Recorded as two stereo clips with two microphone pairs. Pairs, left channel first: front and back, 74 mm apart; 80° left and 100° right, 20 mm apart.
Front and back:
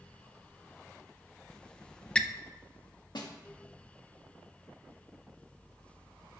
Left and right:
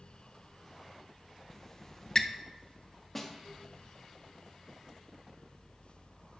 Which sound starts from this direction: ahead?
A snare drum, at 3.1 s.